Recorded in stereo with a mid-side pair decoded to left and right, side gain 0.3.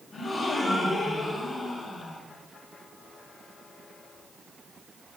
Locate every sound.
0.1 s a gasp: 60° left, 8.5 m